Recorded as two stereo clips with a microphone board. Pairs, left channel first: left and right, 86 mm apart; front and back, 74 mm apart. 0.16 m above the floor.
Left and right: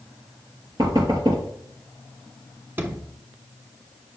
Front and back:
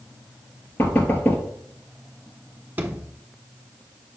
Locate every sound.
0.8 s knocking: 65° right, 2.5 m
2.8 s a sliding door: 135° right, 1.1 m